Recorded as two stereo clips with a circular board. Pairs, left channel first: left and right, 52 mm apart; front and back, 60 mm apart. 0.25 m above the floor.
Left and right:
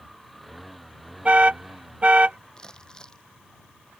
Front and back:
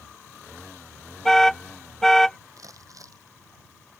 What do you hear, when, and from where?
1.2 s an alarm: 75° right
2.6 s crumpling: 165° left